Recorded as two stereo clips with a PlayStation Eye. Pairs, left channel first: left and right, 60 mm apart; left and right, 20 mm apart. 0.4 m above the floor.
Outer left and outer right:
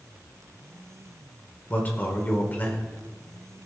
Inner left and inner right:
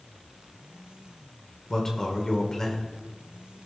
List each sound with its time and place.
1.7 s a man speaking: 30° left (ahead or behind), 1.5 m